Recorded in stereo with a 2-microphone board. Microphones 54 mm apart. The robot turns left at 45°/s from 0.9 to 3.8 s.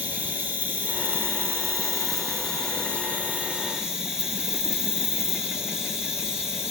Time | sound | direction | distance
0.0 | an insect | 35° right | 1.6 m